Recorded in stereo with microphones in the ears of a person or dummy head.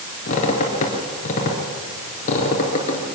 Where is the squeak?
40° left (ahead or behind), 3.5 m.